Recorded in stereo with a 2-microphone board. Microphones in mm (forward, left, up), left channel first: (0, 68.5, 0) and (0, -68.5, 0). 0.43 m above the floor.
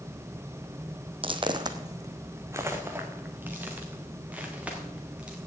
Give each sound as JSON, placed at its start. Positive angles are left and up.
{"t": 1.2, "sound": "footsteps", "side_deg": -40, "distance_m": 1.0}